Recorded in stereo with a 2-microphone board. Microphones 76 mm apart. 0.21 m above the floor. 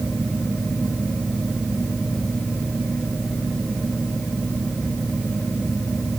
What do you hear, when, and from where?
Only background noise.